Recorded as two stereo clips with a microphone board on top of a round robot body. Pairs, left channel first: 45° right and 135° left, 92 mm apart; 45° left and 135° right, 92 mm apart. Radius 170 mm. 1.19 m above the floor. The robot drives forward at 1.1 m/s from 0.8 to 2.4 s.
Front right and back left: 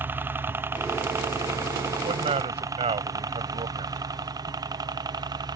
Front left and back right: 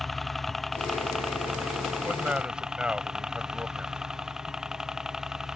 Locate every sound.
0.0 s a helicopter: 135° left; by 5.6 s 145° left
2.0 s a man speaking: 145° left